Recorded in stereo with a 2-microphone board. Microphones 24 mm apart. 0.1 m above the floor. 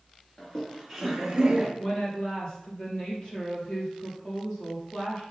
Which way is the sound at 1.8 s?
30° left (ahead or behind).